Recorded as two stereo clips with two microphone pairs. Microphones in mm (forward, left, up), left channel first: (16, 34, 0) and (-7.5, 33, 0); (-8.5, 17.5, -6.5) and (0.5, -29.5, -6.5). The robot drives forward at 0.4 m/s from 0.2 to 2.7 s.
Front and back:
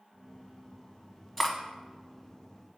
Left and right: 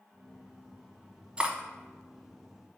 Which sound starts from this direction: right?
Cutlery clinking, at 1.4 s.